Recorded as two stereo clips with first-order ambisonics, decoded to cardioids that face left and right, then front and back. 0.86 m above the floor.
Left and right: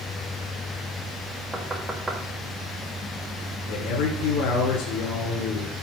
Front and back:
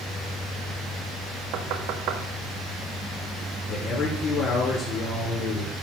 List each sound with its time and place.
1.5 s knocking: 170° right, 1.4 m
3.7 s a man speaking: 55° left, 2 m